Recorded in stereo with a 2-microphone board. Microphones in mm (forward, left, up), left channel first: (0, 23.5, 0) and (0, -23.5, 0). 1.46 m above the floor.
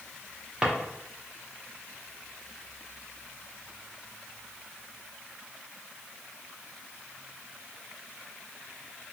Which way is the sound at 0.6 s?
10° right (ahead or behind).